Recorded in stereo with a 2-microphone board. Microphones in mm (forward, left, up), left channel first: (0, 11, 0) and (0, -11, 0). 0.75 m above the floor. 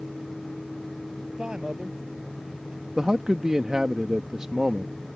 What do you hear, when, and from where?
1.3 s a man speaking: 35° right (ahead or behind)
3.0 s a man speaking: 30° right (ahead or behind)